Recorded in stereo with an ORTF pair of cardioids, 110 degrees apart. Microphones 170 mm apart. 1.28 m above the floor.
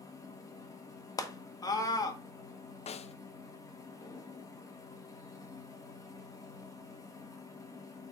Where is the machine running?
20° left, 1.7 m.